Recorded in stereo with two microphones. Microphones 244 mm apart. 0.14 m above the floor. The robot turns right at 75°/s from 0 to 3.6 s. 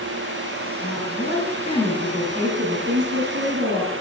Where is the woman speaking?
85° left, 2.5 m; by 3.9 s 65° right, 2.5 m.